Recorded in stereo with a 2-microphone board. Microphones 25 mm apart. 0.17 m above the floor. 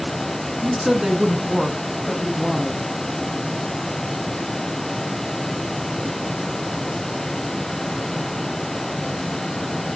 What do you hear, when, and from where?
0.6 s a woman speaking: 20° right (ahead or behind), 1.9 m; by 2.8 s 15° left (ahead or behind), 1.4 m